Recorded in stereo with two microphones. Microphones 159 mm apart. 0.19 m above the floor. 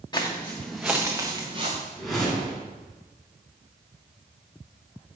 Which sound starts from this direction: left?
Footsteps, at 0.1 s.